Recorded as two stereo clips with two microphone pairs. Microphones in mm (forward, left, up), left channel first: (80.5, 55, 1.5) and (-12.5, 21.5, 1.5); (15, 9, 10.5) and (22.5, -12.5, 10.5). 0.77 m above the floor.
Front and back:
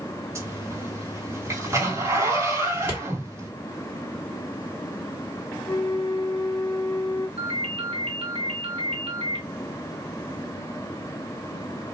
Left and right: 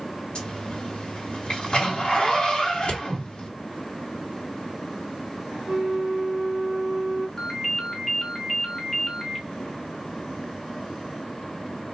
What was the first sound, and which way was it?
A zipper, 145° left.